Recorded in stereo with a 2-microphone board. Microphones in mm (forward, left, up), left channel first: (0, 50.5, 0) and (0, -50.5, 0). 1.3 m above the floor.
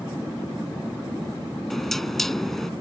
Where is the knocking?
5° left (ahead or behind).